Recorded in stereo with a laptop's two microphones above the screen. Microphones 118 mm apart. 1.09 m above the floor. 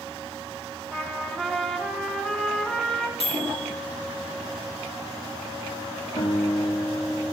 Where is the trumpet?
5° left (ahead or behind), 0.8 m.